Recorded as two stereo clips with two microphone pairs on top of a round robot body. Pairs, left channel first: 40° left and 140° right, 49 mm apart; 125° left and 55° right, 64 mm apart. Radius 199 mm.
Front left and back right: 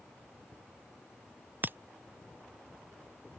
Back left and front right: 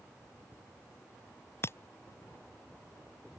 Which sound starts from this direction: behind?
Breaking glass, at 1.6 s.